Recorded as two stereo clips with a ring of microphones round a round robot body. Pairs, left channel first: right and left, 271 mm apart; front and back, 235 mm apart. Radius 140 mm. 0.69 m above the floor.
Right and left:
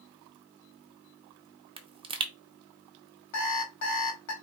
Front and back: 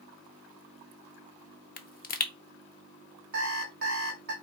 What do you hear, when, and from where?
1.8 s a pop: 25° left, 0.7 m
3.3 s an alarm clock: 120° right, 1.7 m